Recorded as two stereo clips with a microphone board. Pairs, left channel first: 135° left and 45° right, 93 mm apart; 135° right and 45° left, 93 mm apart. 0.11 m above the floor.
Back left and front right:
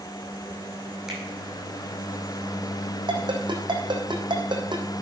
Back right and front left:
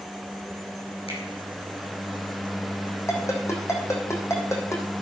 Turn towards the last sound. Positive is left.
turn(degrees=-80)